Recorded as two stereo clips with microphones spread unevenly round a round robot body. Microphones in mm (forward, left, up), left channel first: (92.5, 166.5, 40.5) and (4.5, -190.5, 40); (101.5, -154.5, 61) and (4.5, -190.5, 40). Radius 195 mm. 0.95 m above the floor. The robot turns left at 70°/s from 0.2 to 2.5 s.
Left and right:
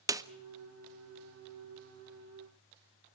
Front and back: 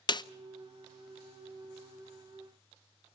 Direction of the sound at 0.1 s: 25° right.